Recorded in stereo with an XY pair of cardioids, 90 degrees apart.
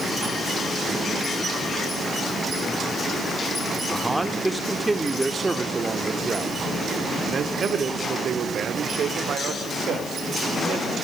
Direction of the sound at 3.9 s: 10° right.